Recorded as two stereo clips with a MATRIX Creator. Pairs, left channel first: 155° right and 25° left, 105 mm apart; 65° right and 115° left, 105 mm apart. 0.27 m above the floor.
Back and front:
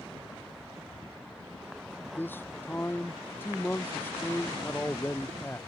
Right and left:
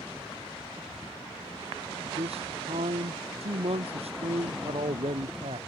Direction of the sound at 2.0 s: 130° left.